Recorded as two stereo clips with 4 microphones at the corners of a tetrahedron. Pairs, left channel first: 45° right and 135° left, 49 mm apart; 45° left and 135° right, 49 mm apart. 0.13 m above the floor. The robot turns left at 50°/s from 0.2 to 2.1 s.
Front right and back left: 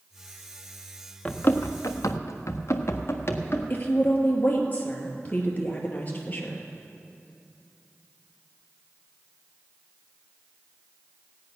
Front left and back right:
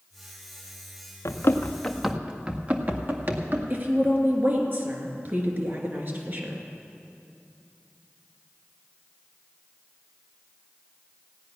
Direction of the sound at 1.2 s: 25° left.